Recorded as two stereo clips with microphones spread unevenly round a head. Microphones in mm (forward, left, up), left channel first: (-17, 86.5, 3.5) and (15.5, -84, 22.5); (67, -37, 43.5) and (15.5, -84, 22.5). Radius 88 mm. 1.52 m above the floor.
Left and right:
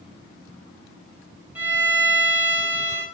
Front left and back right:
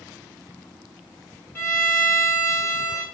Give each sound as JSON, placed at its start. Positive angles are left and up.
{"t": 1.6, "sound": "a violin", "azimuth_deg": 0, "distance_m": 2.5}